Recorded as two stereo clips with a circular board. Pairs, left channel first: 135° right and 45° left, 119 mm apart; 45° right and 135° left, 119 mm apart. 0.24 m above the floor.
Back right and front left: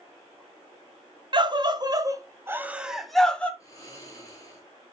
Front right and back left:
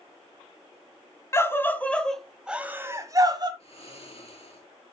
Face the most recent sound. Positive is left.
turn(degrees=-75)